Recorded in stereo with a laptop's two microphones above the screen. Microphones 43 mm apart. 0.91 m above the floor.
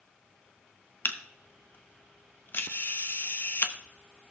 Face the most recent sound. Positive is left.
turn(degrees=50)  # may be behind; listen again after turning